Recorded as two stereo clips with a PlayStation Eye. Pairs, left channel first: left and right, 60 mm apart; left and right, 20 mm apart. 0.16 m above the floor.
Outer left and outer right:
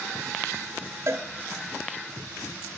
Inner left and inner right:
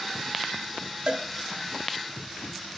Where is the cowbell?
45° right (ahead or behind), 1.2 m.